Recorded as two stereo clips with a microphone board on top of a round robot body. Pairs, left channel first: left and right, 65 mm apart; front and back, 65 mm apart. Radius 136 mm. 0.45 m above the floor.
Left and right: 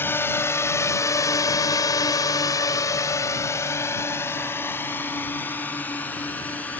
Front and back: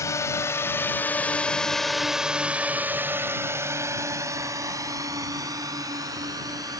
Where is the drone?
35° left; by 6.8 s 155° left.